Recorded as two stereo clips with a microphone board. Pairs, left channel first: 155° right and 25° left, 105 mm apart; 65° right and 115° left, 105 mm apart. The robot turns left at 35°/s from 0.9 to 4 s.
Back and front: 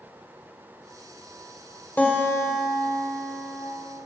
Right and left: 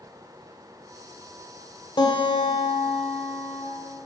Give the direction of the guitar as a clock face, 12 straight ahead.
3 o'clock.